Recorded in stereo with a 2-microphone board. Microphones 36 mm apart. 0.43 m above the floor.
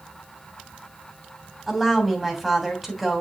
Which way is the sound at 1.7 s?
Centre (ahead or behind).